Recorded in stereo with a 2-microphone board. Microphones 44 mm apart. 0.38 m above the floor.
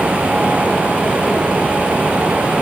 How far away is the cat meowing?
No cat meowing in this recording.